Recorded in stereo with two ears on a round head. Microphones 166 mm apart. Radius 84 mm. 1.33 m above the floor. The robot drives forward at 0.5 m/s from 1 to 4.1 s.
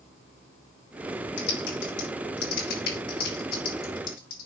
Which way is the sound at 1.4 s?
70° left (ahead or behind).